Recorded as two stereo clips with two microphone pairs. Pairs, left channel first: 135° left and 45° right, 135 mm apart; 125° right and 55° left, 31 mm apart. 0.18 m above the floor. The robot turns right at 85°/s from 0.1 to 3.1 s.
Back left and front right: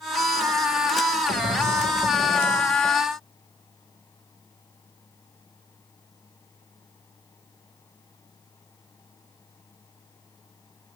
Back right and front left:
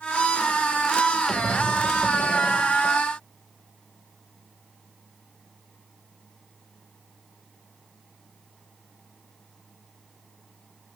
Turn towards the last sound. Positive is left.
turn(degrees=90)